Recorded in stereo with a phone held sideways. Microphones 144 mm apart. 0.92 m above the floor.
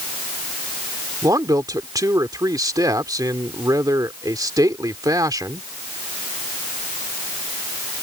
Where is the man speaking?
25° right (ahead or behind).